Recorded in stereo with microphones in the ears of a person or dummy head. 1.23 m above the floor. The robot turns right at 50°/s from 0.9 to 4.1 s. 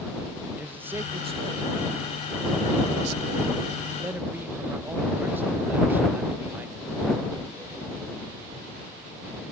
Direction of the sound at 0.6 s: 170° right.